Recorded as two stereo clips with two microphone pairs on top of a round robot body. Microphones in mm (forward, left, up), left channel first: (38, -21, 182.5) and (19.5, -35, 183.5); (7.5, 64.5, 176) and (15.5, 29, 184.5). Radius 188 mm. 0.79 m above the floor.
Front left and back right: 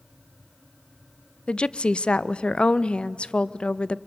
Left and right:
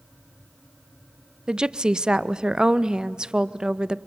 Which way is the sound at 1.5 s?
Straight ahead.